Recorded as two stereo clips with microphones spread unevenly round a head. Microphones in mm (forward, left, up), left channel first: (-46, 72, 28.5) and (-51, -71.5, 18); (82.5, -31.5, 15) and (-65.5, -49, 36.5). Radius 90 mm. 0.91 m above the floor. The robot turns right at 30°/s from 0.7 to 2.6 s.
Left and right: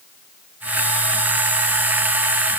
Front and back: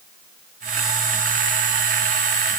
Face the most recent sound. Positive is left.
No sound to turn to.